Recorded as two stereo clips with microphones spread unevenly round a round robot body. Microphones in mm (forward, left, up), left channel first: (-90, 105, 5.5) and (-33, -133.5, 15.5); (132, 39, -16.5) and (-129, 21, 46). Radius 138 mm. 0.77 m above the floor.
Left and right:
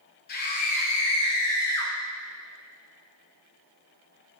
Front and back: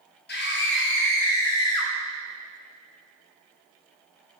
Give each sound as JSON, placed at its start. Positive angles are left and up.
{"t": 0.3, "sound": "a scream", "azimuth_deg": 50, "distance_m": 2.5}